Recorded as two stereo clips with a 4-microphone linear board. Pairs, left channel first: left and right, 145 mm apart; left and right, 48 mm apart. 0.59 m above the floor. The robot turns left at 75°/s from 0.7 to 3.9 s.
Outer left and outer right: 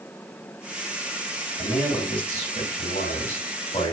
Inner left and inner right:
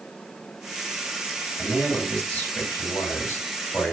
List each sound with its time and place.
1.6 s a man speaking: 155° right, 2 m; by 3.9 s 35° left, 2 m